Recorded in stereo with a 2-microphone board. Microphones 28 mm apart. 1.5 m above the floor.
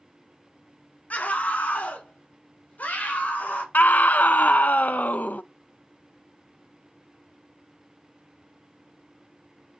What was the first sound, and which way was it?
A scream, 60° left (ahead or behind).